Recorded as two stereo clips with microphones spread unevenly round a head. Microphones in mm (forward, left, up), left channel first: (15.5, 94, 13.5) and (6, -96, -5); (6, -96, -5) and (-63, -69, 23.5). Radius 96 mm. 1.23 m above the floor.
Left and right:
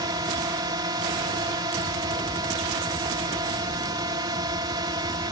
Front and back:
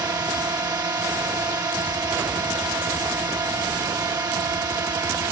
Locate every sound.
0.0 s a drone: 160° right